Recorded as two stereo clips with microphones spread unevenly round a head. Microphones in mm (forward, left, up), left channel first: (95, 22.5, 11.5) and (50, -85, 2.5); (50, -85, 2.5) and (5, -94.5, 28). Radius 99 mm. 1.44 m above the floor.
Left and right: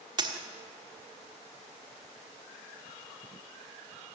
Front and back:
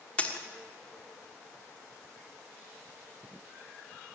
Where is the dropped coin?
70° right, 1.4 m.